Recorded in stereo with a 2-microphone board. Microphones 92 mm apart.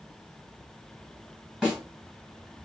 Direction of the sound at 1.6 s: 10° right (ahead or behind).